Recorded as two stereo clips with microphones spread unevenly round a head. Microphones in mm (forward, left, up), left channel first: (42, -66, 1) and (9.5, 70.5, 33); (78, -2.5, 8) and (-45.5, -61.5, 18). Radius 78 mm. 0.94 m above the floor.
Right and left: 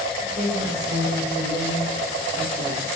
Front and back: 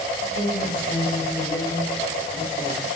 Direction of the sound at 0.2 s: 60° left.